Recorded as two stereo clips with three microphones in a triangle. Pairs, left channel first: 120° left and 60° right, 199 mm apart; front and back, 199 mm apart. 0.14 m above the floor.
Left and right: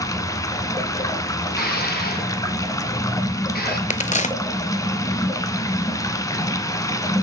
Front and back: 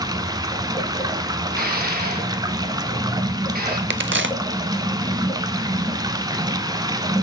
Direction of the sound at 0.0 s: 155° left.